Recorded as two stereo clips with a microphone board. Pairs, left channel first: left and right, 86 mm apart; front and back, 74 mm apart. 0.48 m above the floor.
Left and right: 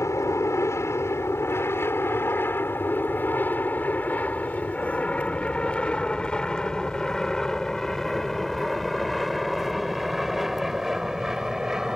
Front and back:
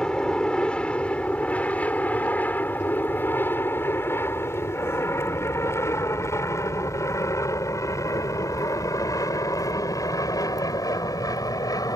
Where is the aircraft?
75° left; by 12.0 s 5° right.